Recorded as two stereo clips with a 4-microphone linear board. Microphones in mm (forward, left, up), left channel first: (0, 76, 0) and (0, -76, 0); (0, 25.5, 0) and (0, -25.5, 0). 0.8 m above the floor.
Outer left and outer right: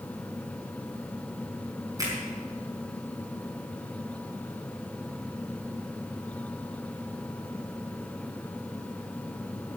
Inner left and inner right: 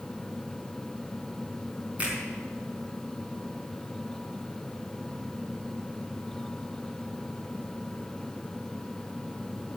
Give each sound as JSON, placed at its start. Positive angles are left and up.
{"t": 2.0, "sound": "a finger snap", "side_deg": -20, "distance_m": 5.5}